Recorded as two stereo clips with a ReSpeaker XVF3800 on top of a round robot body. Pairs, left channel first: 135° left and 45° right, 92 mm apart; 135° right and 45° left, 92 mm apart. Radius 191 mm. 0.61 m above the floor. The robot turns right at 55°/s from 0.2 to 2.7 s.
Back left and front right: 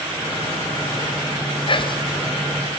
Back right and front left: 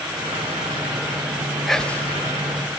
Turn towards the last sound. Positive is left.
turn(degrees=-165)